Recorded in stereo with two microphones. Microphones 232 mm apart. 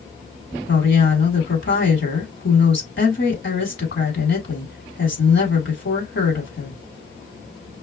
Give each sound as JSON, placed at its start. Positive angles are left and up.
{"t": 0.7, "sound": "a woman speaking", "side_deg": 55, "distance_m": 3.0}